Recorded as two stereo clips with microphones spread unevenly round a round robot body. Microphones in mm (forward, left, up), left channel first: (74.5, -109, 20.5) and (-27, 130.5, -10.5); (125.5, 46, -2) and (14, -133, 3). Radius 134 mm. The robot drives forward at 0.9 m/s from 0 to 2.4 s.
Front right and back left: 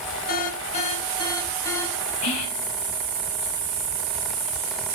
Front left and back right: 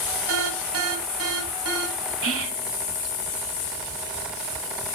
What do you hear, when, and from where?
0.3 s an alarm: 125° right, 1.9 m; by 2.1 s 150° right, 3 m
2.2 s whispering: 105° right, 5 m; by 2.7 s 110° right, 5 m